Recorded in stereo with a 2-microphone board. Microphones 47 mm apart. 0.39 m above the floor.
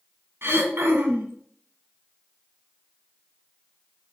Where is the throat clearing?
60° right (ahead or behind), 1.0 m.